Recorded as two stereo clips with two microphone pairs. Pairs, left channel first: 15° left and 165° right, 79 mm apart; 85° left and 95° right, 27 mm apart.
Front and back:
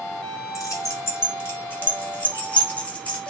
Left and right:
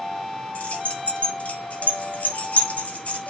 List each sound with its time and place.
0.6 s keys jangling: 60° left, 2 m; by 3.3 s 90° left, 3 m